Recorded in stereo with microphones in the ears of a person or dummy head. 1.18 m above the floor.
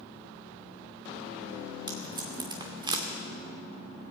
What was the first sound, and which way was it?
Tape being pulled, 25° right (ahead or behind).